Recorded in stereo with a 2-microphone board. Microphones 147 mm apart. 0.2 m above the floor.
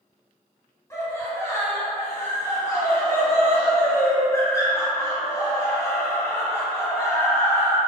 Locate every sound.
0.9 s laughter: 20° left (ahead or behind), 1.3 m